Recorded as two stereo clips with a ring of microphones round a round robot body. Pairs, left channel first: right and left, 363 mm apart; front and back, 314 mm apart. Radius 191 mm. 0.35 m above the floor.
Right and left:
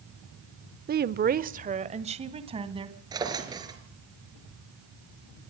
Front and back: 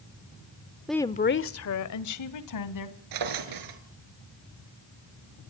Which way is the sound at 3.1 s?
170° left.